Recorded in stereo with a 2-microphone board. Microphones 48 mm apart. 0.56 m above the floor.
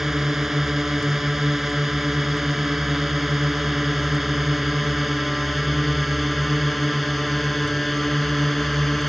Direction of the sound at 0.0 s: 10° right (ahead or behind).